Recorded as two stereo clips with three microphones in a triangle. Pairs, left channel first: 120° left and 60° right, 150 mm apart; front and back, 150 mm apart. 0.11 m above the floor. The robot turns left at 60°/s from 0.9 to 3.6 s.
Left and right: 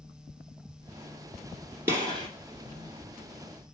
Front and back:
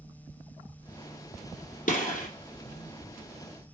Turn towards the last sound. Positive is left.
turn(degrees=-90)